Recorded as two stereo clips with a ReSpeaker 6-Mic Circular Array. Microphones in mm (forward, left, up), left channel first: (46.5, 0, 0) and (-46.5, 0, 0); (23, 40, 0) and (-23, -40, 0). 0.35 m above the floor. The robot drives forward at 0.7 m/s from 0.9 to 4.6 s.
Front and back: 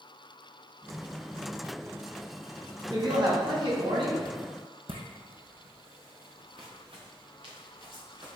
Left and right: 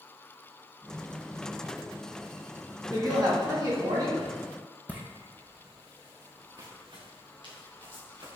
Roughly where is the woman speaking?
Behind right.